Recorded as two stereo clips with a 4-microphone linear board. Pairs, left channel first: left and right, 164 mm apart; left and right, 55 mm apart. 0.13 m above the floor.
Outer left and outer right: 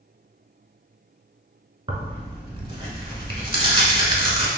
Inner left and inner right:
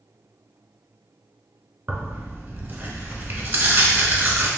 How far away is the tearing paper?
About 0.7 m.